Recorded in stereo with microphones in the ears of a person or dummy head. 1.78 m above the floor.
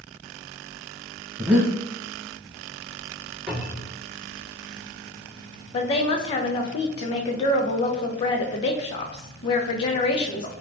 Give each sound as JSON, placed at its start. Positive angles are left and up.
{"t": 1.4, "sound": "breathing", "side_deg": -10, "distance_m": 0.6}
{"t": 3.5, "sound": "a cupboard door", "side_deg": -10, "distance_m": 1.8}
{"t": 5.7, "sound": "a woman speaking", "side_deg": 30, "distance_m": 0.5}